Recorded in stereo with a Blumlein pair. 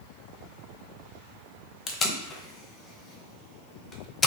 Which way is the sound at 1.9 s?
20° left.